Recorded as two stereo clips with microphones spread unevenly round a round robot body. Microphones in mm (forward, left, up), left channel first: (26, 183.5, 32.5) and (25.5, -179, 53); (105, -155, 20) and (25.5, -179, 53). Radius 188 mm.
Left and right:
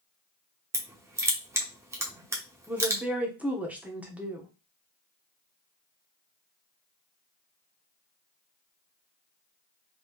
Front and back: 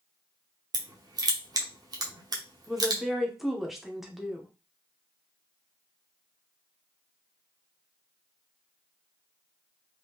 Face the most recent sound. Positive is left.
turn(degrees=0)